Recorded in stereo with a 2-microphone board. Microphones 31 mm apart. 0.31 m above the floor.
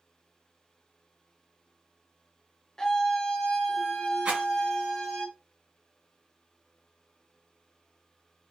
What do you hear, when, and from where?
2.8 s a scream: 20° left (ahead or behind), 0.9 m; by 5.2 s 25° left (ahead or behind), 1.7 m
4.2 s a rattle: 45° right (ahead or behind), 2 m